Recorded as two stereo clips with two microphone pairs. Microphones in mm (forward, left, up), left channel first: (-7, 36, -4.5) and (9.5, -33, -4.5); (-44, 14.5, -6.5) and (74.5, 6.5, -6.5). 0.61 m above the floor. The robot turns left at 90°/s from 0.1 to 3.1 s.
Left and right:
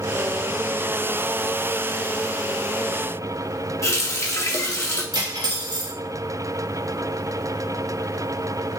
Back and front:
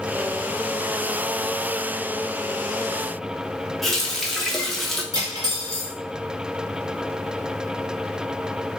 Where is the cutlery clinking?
55° right, 0.9 m.